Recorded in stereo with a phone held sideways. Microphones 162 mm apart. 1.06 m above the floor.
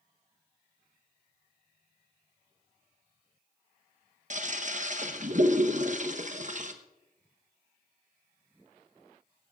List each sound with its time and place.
4.3 s a toilet flushing: 50° right (ahead or behind), 1.0 m